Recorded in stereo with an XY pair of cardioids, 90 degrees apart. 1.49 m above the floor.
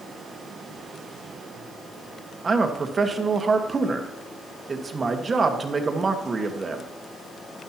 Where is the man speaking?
40° right, 1.5 m.